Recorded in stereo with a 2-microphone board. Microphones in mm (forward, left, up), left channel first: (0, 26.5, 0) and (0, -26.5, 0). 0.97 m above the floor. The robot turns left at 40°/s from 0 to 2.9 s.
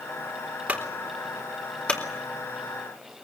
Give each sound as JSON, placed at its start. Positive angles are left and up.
{"t": 0.7, "sound": "a clunk", "side_deg": -25, "distance_m": 3.5}